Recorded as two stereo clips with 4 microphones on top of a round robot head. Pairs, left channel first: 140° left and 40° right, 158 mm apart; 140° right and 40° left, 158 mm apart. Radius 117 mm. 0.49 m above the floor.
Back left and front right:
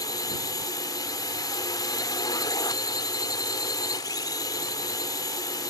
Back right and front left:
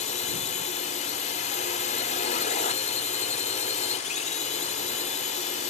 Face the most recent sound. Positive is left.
turn(degrees=-160)